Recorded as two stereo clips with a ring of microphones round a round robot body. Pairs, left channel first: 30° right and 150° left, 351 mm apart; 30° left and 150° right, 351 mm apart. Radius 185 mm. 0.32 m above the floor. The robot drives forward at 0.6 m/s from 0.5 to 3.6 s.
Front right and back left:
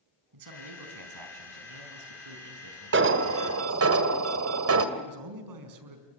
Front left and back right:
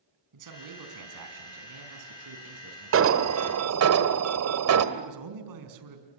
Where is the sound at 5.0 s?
Straight behind, 4.5 m.